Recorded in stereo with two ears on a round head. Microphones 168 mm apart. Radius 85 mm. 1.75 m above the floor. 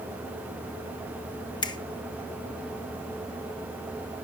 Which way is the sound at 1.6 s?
25° left (ahead or behind).